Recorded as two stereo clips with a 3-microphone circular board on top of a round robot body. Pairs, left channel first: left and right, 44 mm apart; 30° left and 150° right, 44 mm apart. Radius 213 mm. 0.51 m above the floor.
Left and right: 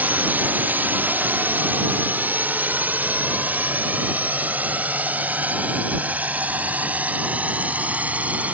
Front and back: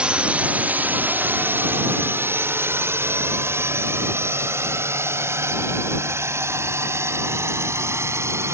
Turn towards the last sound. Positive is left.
turn(degrees=-145)